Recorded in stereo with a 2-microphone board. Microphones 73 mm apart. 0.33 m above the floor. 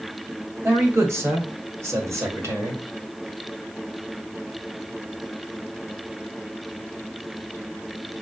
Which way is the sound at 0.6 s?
35° right (ahead or behind).